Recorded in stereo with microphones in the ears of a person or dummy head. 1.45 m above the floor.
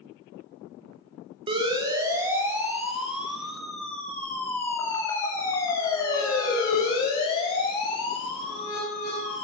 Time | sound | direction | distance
1.5 | a siren | 30° right (ahead or behind) | 2.5 m